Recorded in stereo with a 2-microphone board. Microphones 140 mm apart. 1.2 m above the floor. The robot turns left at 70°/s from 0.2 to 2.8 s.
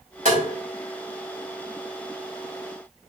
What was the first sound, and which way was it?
Tapping, 70° right (ahead or behind).